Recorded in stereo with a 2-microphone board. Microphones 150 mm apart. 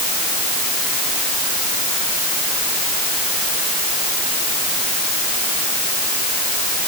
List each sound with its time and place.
Only background noise.